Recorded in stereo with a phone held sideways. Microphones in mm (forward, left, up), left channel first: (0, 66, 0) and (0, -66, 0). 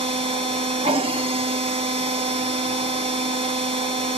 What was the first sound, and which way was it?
A machine running, 45° right (ahead or behind).